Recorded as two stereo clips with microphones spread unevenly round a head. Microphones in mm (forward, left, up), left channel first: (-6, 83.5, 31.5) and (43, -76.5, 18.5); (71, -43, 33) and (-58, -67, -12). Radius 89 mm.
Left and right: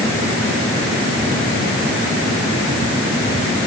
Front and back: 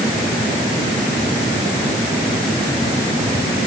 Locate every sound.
Only background noise.